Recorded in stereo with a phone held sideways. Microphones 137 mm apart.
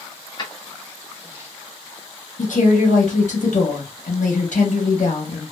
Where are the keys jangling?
35° left (ahead or behind), 0.9 m; by 1.5 s 25° right (ahead or behind), 0.9 m.